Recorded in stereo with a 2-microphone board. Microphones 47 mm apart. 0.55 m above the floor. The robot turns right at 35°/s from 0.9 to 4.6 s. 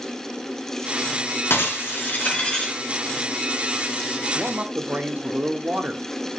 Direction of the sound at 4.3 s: 40° right (ahead or behind).